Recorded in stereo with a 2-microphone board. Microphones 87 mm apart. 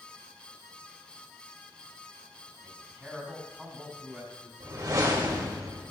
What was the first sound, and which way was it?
A man speaking, 10° right (ahead or behind).